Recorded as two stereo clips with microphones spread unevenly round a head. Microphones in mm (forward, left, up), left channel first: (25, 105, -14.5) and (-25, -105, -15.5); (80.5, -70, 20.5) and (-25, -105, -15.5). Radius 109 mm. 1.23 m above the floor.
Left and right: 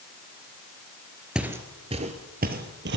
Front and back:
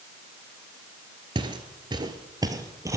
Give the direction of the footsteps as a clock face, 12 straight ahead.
6 o'clock.